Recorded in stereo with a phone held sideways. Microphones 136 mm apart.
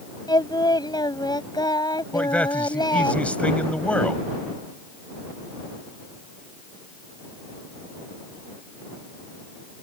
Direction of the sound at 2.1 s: 10° left (ahead or behind).